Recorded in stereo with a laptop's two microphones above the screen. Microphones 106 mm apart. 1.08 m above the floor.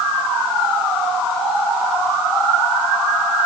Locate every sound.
Only background noise.